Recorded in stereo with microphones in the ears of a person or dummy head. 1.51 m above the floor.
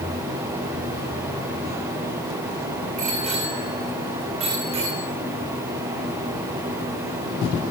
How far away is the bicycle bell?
About 5.5 m.